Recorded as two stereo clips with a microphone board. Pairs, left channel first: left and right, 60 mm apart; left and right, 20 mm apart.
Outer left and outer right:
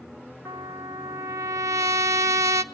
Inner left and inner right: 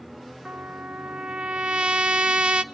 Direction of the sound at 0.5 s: 65° right (ahead or behind).